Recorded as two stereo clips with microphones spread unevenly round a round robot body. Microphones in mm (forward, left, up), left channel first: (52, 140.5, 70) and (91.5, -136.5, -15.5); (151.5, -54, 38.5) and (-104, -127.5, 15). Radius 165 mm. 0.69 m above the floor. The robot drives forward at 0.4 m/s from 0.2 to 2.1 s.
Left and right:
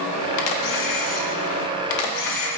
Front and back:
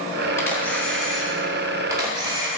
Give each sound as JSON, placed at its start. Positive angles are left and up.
{"t": 0.4, "sound": "a camera shutter", "azimuth_deg": 100, "distance_m": 1.7}